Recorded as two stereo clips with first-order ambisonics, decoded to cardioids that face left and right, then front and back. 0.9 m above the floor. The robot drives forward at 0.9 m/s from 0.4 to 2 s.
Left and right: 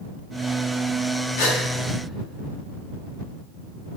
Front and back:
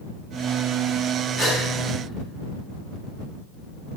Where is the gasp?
110° left, 5 m; by 1.6 s 115° left, 5 m.